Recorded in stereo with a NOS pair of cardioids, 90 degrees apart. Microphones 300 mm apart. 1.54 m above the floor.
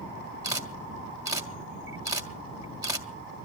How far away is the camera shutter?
About 2.5 m.